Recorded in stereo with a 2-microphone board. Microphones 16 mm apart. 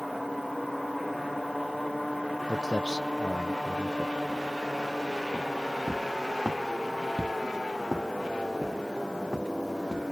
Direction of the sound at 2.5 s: 50° right (ahead or behind).